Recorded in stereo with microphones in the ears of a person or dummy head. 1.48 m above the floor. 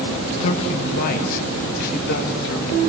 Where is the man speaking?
40° left (ahead or behind), 2.5 m; by 2.8 s 70° left (ahead or behind), 3.5 m.